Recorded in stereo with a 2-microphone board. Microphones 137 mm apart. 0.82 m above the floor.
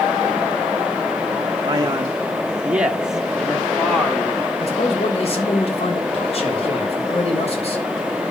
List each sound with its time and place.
1.6 s a man speaking: 30° right (ahead or behind), 0.6 m; by 4.5 s 5° left (ahead or behind), 1.6 m
4.6 s a man speaking: 45° left (ahead or behind), 3.5 m